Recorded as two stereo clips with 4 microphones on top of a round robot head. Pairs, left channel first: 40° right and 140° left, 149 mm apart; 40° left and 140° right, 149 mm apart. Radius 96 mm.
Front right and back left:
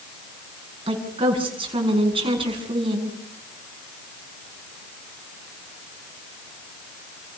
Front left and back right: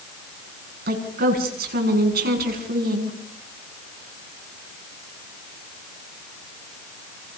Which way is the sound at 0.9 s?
160° right.